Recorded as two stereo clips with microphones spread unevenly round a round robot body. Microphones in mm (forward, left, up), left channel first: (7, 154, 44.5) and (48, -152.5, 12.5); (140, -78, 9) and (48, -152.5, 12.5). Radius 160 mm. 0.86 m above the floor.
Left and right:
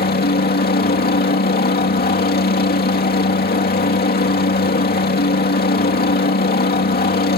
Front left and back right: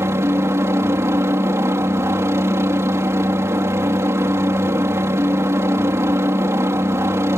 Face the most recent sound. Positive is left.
turn(degrees=155)